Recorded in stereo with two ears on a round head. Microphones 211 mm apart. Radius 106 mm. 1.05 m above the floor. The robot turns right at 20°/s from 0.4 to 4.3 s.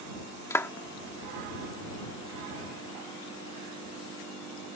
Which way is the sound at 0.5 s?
10° left (ahead or behind).